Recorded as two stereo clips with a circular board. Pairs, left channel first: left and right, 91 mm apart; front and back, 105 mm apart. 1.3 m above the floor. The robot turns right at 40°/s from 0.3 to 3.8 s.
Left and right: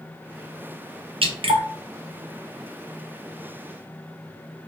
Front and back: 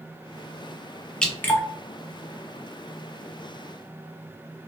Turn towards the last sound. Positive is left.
turn(degrees=20)